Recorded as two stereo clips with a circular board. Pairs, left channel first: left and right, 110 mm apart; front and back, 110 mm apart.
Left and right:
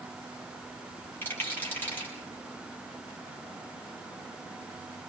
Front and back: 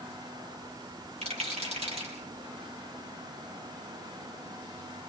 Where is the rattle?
160° left, 8 m.